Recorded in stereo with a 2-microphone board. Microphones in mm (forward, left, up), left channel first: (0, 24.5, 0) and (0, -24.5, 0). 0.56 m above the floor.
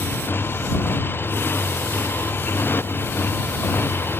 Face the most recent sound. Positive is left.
turn(degrees=50)  # may be behind; listen again after turning